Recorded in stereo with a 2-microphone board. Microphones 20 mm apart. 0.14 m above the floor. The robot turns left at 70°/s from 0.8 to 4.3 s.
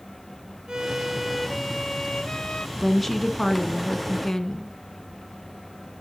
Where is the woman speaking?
Centre (ahead or behind), 1.5 m; by 4.7 s 25° left (ahead or behind), 1.5 m.